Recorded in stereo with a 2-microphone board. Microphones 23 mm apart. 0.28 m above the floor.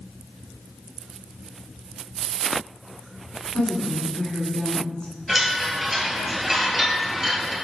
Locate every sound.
3.5 s a woman speaking: 25° left (ahead or behind), 2 m
5.3 s a chime: 20° right (ahead or behind), 2 m